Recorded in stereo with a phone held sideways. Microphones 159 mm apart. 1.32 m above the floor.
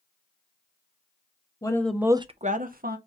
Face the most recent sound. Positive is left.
turn(degrees=-70)  # may be behind; listen again after turning